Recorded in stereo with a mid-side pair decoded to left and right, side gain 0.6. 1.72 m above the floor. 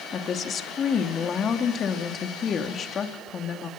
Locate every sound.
0.1 s a woman speaking: 40° left, 2.5 m